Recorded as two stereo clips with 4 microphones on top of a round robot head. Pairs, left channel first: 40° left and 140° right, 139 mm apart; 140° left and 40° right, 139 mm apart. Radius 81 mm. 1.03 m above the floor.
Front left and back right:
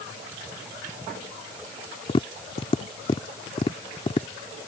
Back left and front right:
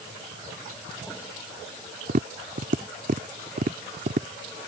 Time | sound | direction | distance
2.1 | tapping | 10° right | ?